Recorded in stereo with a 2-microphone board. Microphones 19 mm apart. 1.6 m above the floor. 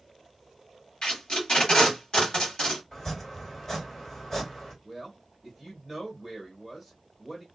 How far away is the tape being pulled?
About 1.6 m.